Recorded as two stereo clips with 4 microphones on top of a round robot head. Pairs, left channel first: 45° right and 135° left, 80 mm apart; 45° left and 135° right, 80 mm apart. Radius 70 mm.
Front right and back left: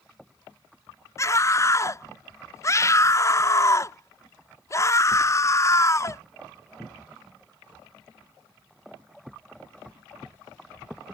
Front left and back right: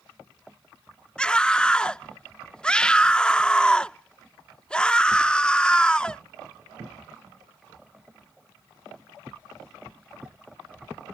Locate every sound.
1.2 s a scream: 25° right